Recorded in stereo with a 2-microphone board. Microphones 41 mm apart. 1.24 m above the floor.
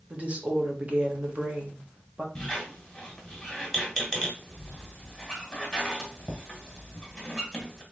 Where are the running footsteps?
I don't hear running footsteps.